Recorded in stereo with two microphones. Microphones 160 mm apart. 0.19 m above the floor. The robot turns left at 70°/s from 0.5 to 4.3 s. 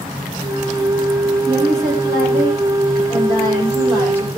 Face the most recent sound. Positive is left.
turn(degrees=0)